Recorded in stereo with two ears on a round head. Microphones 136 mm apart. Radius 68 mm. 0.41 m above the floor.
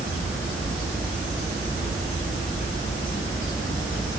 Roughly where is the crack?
I don't hear a crack.